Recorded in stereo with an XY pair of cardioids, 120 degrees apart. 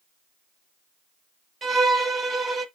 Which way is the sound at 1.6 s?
25° right.